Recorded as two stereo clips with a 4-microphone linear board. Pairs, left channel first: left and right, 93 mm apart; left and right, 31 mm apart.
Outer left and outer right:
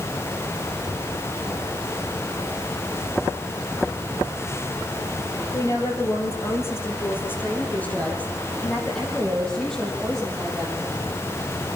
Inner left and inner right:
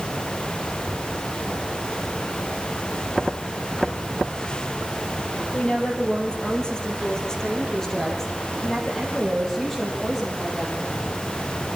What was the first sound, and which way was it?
A woman speaking, 35° left (ahead or behind).